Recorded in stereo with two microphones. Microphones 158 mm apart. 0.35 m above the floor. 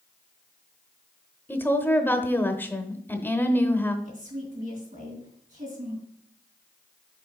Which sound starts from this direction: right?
A woman speaking, at 4.0 s.